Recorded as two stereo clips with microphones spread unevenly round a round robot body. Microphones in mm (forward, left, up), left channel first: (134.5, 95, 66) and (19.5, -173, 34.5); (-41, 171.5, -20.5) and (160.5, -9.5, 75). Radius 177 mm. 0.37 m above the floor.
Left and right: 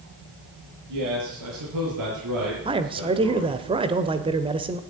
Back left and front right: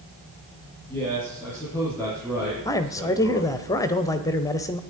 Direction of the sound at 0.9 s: 140° right.